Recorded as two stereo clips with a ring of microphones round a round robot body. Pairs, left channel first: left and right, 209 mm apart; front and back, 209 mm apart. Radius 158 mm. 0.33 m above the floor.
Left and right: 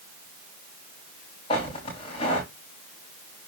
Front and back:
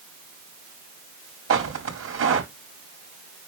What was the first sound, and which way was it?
Footsteps, 165° left.